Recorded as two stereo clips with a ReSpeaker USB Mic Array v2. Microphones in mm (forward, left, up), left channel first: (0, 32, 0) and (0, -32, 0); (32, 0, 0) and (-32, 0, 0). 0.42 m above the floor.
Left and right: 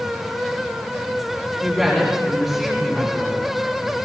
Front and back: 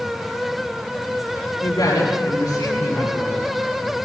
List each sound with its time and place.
1.6 s a woman speaking: 5° right, 7.5 m